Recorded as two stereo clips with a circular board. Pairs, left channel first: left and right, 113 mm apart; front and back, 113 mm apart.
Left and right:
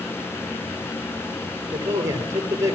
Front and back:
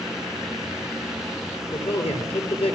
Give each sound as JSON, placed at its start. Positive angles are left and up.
{"t": 1.7, "sound": "a man speaking", "azimuth_deg": -30, "distance_m": 6.5}